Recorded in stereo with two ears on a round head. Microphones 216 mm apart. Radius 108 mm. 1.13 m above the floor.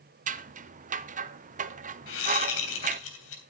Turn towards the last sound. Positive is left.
turn(degrees=55)  # may be behind; listen again after turning